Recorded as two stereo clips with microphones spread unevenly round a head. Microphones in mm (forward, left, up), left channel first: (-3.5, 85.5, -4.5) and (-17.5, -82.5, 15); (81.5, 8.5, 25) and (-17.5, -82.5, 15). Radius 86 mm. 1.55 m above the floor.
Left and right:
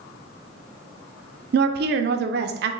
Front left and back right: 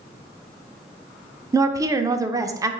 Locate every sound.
1.5 s a woman speaking: 70° right, 0.5 m